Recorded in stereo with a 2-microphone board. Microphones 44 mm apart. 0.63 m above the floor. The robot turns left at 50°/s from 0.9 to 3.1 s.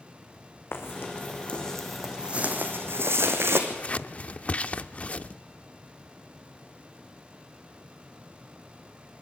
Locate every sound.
0.7 s footsteps: 70° left (ahead or behind), 3 m; by 3.6 s 75° right (ahead or behind), 2.5 m
3.7 s scissors: 35° left (ahead or behind), 0.5 m